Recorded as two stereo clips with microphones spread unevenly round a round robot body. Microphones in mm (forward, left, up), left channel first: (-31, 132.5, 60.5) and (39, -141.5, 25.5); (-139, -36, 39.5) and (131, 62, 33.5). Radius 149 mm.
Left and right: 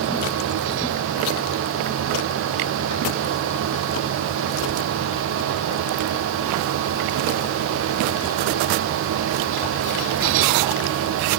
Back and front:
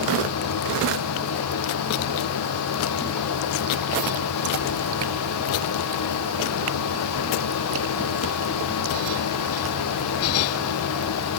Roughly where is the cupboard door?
No cupboard door in this recording.